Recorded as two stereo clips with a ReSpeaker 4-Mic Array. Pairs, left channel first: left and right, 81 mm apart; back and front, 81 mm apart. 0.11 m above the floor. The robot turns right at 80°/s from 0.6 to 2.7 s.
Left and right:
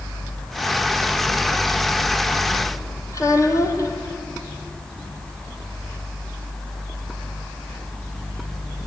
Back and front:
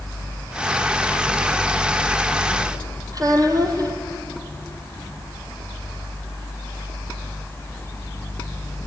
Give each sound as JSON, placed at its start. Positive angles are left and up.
{"t": 3.1, "sound": "a child speaking", "azimuth_deg": 40, "distance_m": 3.0}